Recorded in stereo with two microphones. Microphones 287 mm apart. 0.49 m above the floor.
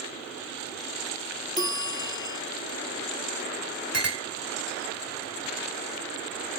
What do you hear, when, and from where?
1.6 s a bell: 15° left (ahead or behind), 0.6 m
3.9 s a clink: 55° right (ahead or behind), 1.6 m